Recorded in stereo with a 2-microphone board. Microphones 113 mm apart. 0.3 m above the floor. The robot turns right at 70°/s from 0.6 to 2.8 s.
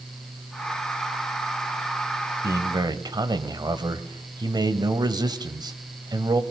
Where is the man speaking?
25° right (ahead or behind), 1.1 m; by 6.4 s 40° right (ahead or behind), 1.1 m.